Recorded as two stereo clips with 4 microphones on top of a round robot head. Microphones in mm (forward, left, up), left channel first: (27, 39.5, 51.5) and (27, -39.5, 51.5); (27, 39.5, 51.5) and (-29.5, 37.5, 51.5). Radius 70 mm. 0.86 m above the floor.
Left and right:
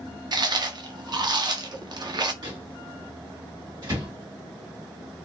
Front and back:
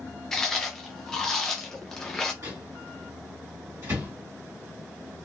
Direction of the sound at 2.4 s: 130° right.